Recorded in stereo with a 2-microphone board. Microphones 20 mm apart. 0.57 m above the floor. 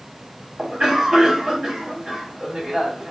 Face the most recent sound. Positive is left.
turn(degrees=-45)  # may be behind; listen again after turning